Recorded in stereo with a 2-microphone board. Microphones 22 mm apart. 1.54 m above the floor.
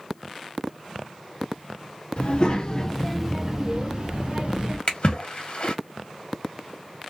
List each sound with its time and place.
2.2 s a child speaking: 50° left (ahead or behind), 1.3 m; by 4.8 s 45° right (ahead or behind), 1.9 m
4.9 s a splash: 45° left (ahead or behind), 1.4 m